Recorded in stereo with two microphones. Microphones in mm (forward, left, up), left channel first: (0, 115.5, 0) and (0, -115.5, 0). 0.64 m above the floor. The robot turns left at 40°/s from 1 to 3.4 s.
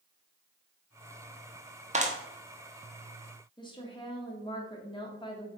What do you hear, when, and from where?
1.9 s a clap: 30° right (ahead or behind), 0.9 m; by 2.2 s 35° right (ahead or behind), 0.9 m
3.6 s a woman speaking: 20° left (ahead or behind), 1.5 m